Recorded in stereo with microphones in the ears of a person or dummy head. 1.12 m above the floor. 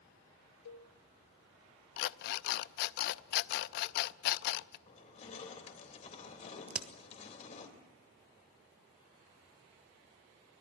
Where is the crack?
10° right (ahead or behind), 1.2 m.